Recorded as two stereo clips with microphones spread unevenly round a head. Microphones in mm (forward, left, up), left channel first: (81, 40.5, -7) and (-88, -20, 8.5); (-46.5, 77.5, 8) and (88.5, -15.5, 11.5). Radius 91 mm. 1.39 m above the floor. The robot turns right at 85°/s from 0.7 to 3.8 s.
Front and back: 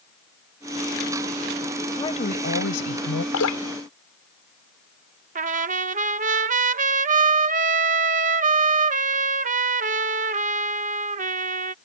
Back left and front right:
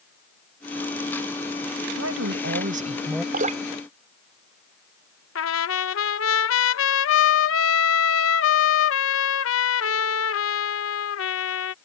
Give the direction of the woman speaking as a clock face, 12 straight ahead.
2 o'clock.